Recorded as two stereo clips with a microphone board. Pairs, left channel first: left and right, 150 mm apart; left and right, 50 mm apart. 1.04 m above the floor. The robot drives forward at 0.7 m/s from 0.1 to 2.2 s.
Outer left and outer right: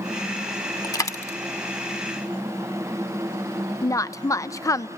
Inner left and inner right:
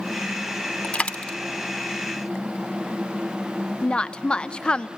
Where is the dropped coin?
25° left (ahead or behind), 0.8 m; by 1.4 s 20° left (ahead or behind), 1.1 m.